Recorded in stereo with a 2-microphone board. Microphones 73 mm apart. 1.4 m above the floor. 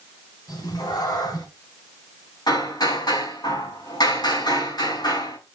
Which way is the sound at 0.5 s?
65° left (ahead or behind).